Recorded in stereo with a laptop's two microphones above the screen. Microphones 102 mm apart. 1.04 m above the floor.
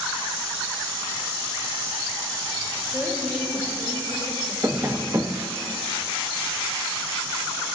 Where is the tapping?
25° right (ahead or behind), 0.5 m.